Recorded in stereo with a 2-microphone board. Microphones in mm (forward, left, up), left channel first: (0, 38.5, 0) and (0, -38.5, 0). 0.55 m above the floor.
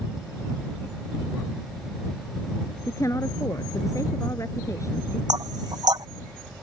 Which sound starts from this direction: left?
A woman speaking, at 2.9 s.